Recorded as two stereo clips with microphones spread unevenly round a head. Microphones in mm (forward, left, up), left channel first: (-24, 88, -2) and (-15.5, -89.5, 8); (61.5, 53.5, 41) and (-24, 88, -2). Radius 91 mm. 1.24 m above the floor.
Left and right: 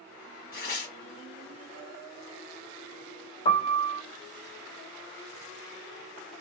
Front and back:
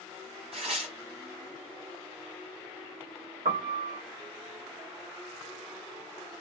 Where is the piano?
150° left, 1.1 m.